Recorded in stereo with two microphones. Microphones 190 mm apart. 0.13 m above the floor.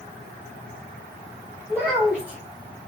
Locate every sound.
1.7 s a child speaking: 5° right (ahead or behind), 3 m